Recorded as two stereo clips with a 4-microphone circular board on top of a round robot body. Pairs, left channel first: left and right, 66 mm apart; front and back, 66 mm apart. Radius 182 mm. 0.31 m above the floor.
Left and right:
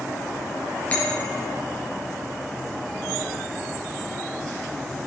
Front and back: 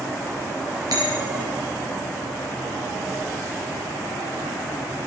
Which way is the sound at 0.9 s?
155° left.